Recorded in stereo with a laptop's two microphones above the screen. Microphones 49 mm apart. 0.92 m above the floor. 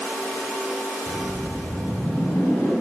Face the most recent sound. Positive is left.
turn(degrees=65)  # may be behind; listen again after turning